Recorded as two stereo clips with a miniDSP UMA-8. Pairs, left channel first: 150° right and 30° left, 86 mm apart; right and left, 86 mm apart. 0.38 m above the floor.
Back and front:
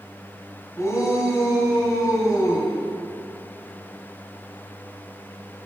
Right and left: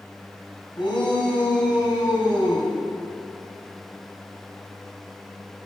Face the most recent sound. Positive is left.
turn(degrees=-100)